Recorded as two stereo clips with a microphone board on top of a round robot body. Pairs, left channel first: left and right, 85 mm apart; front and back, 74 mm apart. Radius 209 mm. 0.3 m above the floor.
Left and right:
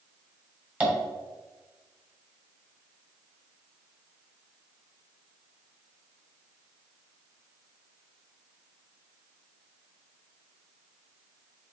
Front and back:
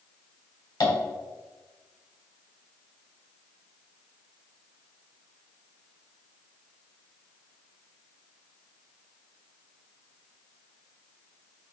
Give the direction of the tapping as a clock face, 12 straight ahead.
1 o'clock.